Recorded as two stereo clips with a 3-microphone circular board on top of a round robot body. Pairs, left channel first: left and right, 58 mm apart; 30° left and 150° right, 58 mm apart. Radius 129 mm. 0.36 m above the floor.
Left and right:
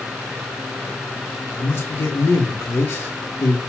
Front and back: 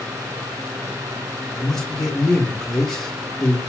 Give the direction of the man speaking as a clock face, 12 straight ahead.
8 o'clock.